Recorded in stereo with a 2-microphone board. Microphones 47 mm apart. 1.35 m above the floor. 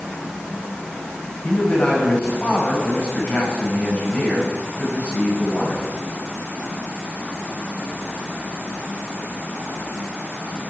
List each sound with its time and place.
1.4 s a man speaking: 35° left (ahead or behind), 8.5 m